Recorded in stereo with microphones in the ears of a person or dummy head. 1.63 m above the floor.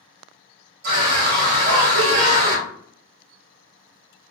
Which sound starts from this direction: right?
A scream, at 0.8 s.